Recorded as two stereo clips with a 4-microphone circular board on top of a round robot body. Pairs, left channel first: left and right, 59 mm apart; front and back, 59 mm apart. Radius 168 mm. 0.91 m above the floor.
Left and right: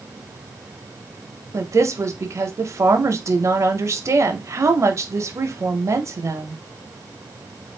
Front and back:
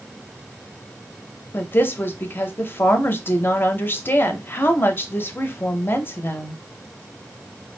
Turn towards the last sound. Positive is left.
turn(degrees=-55)